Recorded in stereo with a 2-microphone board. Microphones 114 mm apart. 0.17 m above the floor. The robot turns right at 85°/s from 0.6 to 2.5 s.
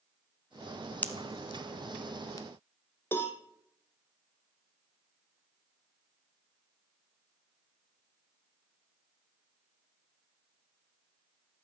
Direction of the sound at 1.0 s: 15° left (ahead or behind).